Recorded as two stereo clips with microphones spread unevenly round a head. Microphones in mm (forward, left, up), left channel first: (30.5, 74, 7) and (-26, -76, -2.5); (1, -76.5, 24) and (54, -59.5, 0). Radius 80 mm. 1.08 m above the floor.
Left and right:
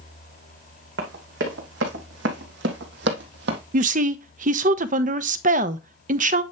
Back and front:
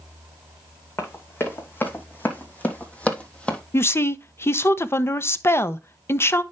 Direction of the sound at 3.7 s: 105° right.